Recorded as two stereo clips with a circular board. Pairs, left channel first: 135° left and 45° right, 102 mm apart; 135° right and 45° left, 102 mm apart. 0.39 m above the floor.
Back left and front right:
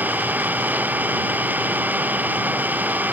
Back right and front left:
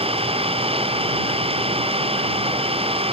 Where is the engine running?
30° left.